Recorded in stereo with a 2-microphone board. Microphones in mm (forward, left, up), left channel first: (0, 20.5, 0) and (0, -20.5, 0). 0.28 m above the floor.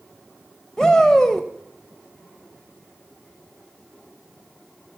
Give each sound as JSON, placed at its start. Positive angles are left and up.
{"t": 0.8, "sound": "a shout", "side_deg": 15, "distance_m": 1.2}